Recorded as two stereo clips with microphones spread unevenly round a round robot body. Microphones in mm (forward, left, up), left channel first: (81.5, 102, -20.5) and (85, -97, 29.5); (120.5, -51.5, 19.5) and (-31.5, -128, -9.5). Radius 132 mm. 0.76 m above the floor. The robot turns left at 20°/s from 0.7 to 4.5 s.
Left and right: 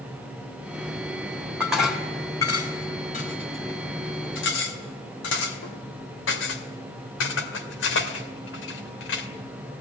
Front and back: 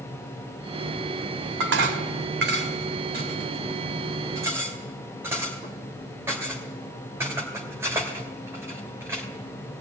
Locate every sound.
1.6 s dishes clattering: 175° right, 1.9 m; by 9.3 s 125° left, 1.9 m